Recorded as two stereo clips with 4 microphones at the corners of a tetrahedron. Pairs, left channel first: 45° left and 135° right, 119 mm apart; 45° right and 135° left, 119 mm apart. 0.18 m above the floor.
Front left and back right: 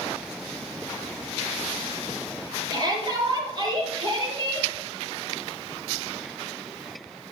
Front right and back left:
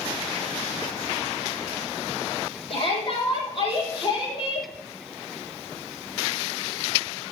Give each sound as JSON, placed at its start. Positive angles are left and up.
{"t": 2.7, "sound": "a shout", "azimuth_deg": -85, "distance_m": 5.0}